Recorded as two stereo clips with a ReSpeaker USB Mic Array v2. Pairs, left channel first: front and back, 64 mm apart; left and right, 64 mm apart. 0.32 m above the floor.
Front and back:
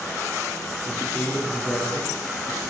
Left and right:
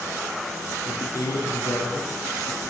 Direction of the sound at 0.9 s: 65° left.